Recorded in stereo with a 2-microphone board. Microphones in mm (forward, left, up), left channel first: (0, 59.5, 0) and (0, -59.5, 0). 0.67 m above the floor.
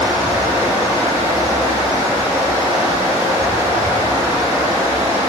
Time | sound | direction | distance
0.0 | running water | 25° right (ahead or behind) | 0.7 m